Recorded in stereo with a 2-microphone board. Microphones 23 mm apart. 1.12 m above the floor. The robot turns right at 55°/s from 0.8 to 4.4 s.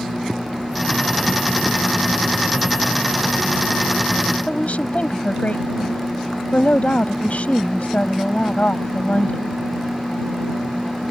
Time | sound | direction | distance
4.5 | a woman speaking | 65° left (ahead or behind) | ?